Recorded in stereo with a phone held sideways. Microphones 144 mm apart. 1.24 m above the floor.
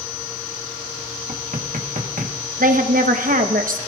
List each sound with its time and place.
1.3 s knocking: 70° right (ahead or behind), 1.1 m
2.6 s a woman speaking: 75° right (ahead or behind), 1.0 m